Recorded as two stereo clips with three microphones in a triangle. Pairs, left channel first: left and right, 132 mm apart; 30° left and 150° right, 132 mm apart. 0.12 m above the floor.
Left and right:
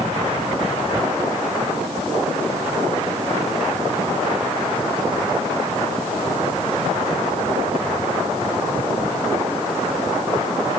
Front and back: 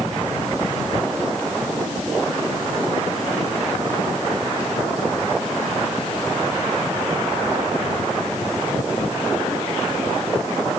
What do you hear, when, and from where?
Only background noise.